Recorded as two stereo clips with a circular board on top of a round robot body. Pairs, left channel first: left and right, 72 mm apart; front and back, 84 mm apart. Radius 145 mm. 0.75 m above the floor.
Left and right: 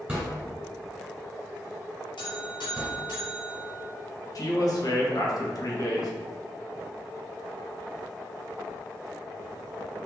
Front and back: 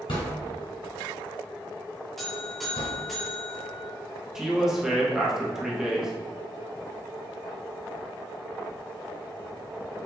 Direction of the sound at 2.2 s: 90° left.